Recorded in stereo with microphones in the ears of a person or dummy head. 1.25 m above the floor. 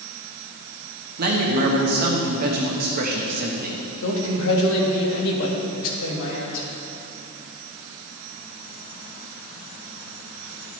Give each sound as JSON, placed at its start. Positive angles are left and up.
{"t": 1.2, "sound": "a man speaking", "side_deg": -50, "distance_m": 1.0}
{"t": 4.0, "sound": "a man speaking", "side_deg": 70, "distance_m": 1.6}